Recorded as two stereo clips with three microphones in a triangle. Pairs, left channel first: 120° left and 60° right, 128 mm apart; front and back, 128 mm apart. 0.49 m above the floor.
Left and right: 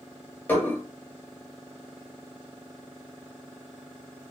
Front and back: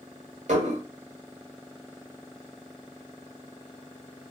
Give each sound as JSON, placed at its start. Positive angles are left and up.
{"t": 0.5, "sound": "dishes clattering", "azimuth_deg": -165, "distance_m": 1.2}